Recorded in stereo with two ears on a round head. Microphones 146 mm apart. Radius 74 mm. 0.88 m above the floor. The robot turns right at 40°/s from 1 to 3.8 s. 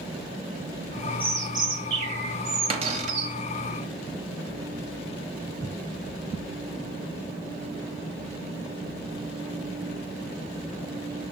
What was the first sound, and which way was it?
A bird, 165° right.